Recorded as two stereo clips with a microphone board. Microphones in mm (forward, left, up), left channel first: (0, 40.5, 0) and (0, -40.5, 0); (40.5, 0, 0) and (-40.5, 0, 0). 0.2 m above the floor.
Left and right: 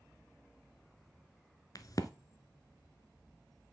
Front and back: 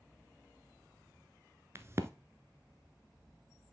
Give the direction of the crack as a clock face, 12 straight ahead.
8 o'clock.